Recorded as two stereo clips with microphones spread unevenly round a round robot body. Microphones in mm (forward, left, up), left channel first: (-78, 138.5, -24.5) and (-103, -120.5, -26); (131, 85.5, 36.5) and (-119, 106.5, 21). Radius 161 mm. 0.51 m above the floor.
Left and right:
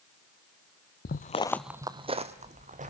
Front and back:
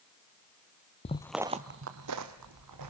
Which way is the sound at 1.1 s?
45° left.